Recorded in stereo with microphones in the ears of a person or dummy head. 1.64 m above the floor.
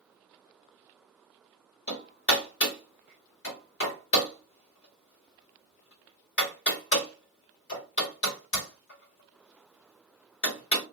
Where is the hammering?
50° left (ahead or behind), 1.5 m.